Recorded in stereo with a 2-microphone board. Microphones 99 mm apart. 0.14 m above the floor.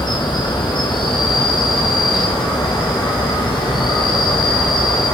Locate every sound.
0.0 s an insect: 50° left (ahead or behind), 2.5 m